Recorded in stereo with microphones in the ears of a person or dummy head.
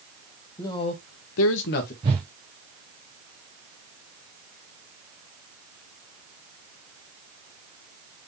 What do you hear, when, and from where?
0.6 s a man speaking: 20° left (ahead or behind), 0.9 m; by 1.9 s 45° left (ahead or behind), 0.9 m
2.0 s a whoosh: 20° right (ahead or behind), 0.6 m